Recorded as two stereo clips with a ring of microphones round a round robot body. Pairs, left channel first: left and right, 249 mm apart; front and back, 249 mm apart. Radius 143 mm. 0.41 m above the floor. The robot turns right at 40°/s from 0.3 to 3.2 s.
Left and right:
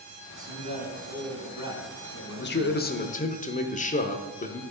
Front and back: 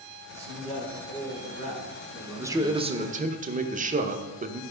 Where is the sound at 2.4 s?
105° left, 1.0 m; by 4.6 s 135° left, 1.0 m.